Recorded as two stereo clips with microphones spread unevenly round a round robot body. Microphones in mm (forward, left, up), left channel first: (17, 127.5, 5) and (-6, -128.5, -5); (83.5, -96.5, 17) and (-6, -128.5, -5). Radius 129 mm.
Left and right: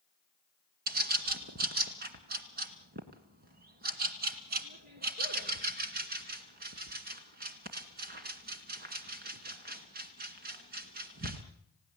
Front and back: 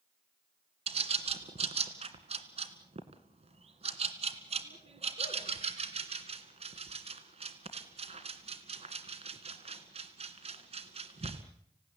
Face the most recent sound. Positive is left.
turn(degrees=-155)